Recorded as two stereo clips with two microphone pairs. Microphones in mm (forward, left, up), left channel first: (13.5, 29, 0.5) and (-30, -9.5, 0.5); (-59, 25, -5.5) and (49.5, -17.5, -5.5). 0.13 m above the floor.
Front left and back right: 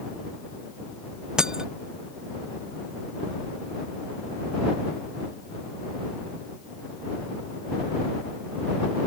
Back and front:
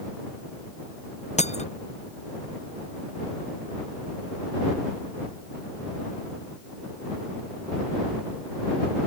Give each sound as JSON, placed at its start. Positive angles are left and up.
{"t": 1.4, "sound": "breaking glass", "azimuth_deg": 145}